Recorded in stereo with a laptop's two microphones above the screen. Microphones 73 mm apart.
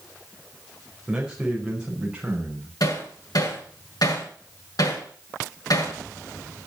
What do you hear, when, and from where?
1.1 s a man speaking: 10° right (ahead or behind), 4.5 m; by 2.7 s 15° right (ahead or behind), 6 m
2.8 s hammering: 60° left (ahead or behind), 6.5 m